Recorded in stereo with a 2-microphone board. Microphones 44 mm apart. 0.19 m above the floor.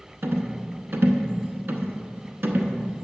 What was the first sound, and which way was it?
A rattle, 60° right (ahead or behind).